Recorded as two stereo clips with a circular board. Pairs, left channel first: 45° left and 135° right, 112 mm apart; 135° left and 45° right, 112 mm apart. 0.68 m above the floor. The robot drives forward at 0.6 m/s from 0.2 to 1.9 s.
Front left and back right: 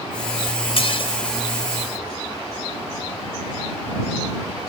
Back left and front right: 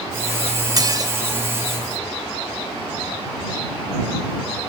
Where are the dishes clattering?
10° left, 1.9 m.